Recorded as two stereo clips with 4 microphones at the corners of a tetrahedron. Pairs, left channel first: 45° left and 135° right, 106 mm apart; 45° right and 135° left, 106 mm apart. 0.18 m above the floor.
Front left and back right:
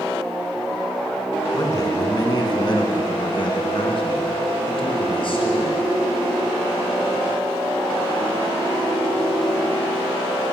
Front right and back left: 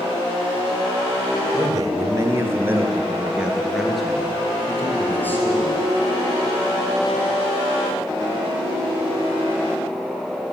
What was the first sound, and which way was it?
A man speaking, 95° left.